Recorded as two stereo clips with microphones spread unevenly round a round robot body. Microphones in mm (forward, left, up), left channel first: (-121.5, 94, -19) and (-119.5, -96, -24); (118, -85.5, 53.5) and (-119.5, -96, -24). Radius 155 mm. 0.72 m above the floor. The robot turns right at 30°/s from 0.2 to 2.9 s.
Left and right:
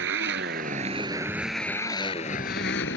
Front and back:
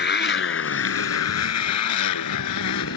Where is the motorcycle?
40° right; by 3.0 s 40° left.